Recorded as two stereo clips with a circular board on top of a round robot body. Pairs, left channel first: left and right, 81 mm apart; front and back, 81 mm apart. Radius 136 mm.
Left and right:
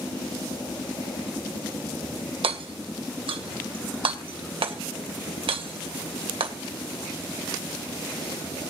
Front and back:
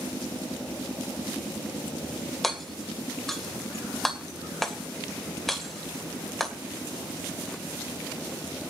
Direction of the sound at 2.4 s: 85° right.